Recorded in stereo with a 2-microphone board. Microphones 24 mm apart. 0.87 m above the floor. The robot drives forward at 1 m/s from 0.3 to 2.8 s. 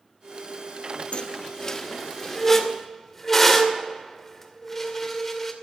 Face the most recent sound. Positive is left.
turn(degrees=10)  # may be behind; listen again after turning